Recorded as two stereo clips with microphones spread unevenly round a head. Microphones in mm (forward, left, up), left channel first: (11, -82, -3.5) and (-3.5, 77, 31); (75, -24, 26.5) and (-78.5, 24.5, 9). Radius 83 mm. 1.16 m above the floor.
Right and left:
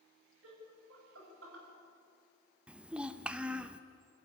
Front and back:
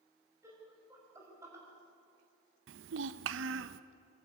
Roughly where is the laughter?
Left.